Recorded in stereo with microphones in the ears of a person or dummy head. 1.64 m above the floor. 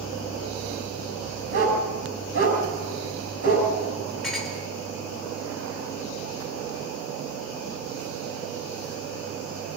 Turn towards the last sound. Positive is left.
turn(degrees=5)  # may be behind; listen again after turning